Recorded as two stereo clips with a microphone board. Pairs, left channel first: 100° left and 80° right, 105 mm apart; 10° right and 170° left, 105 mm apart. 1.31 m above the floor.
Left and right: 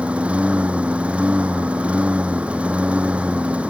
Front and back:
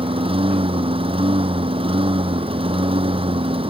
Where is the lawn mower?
160° right.